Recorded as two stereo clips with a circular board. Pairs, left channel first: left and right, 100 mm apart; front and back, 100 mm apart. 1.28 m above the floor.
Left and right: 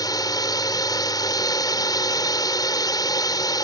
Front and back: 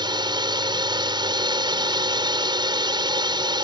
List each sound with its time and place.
0.0 s a drone: 140° left